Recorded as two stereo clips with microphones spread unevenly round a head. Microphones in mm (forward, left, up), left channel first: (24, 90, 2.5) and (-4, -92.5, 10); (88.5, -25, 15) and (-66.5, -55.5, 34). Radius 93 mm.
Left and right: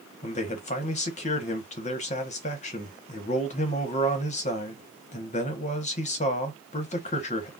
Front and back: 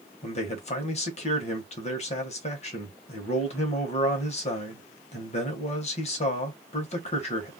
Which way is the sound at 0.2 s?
40° left.